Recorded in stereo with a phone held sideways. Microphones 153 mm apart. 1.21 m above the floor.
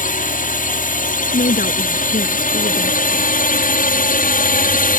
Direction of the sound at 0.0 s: 55° left (ahead or behind).